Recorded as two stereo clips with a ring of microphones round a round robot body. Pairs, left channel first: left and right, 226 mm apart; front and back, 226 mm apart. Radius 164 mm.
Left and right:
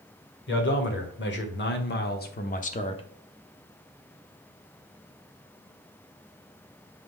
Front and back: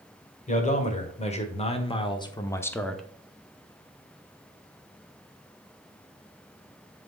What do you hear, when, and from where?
0.5 s a man speaking: 55° left, 1.9 m; by 3.0 s 90° left, 0.7 m